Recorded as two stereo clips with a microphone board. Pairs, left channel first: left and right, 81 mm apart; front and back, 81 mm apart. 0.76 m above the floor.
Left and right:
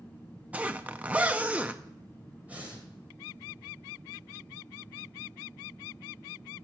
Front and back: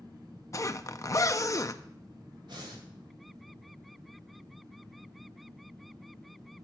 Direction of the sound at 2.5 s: 160° right.